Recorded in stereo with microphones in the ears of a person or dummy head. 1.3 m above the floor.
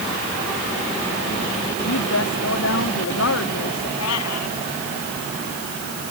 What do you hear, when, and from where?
1.8 s a woman speaking: 70° left (ahead or behind)
4.0 s a cat meowing: 70° left (ahead or behind)